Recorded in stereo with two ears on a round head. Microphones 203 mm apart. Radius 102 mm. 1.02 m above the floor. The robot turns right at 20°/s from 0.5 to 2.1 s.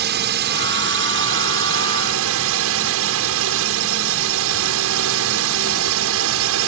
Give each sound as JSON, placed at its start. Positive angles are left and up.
{"t": 0.0, "sound": "a drone", "azimuth_deg": -125}